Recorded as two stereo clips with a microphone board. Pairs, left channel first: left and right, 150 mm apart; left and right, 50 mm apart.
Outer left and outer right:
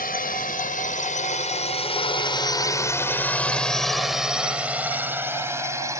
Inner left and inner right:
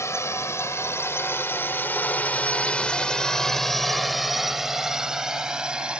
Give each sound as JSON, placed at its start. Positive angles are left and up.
{"t": 0.0, "sound": "a drone", "side_deg": 75}